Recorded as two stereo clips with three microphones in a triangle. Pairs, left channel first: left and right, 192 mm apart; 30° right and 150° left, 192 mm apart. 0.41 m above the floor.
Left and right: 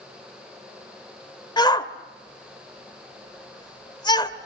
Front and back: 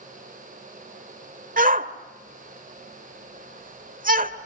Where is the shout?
150° left, 1.4 m.